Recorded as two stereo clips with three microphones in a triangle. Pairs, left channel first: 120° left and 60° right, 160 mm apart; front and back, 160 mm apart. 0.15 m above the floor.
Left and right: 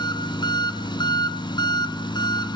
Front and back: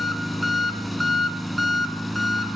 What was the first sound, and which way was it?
An engine running, 90° left.